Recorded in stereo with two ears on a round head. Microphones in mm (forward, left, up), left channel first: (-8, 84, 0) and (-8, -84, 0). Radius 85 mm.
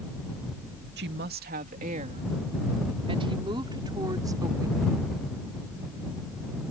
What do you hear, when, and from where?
1.0 s a woman speaking: 65° right (ahead or behind); by 5.2 s 15° right (ahead or behind)